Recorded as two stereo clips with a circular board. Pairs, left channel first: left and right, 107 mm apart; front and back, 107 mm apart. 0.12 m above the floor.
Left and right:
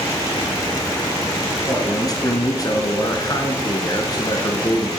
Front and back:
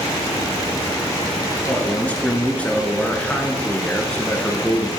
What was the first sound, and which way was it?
A man speaking, 70° left.